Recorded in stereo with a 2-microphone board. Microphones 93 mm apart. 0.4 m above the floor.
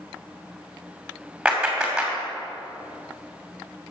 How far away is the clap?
About 2.5 m.